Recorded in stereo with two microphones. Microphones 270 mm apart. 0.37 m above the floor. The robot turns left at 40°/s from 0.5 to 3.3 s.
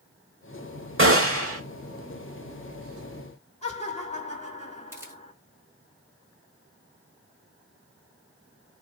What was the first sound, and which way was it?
A gunshot, 50° right (ahead or behind).